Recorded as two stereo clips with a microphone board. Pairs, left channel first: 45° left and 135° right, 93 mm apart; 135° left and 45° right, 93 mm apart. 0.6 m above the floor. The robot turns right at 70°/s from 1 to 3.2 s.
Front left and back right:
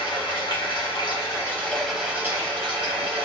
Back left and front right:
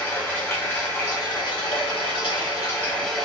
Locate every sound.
0.0 s running water: 70° left, 1.0 m; by 3.2 s 135° right, 1.0 m